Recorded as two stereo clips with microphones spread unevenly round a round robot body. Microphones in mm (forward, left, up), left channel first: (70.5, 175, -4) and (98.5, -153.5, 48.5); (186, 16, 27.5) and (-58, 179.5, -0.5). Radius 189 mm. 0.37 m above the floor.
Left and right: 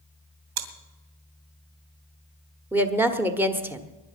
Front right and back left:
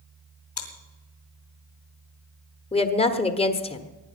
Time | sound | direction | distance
0.6 | chewing | 105° right | 2.5 m
2.7 | a woman speaking | 15° left | 1.3 m